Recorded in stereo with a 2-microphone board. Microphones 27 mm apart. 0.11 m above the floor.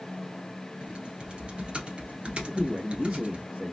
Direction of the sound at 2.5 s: 25° right (ahead or behind).